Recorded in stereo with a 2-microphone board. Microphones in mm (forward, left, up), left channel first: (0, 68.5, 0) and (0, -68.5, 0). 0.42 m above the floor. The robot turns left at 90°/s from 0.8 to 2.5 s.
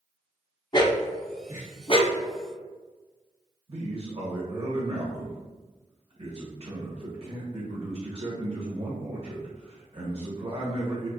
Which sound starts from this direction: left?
A dog barking, at 0.7 s.